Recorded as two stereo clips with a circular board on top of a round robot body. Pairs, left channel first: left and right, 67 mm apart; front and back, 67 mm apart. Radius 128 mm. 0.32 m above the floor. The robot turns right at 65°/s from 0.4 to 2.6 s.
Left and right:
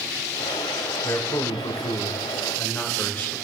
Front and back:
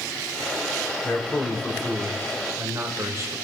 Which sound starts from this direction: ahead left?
A man speaking, at 1.0 s.